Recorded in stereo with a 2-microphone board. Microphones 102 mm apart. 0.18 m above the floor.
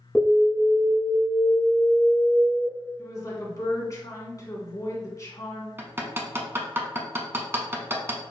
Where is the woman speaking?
35° left (ahead or behind), 1.5 m.